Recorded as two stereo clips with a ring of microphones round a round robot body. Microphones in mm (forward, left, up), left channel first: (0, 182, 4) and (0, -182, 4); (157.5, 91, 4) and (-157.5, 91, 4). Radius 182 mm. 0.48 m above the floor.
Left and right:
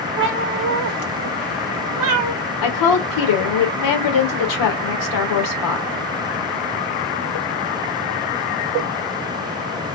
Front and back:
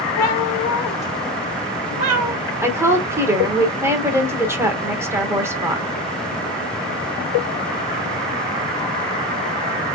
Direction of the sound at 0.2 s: 30° right.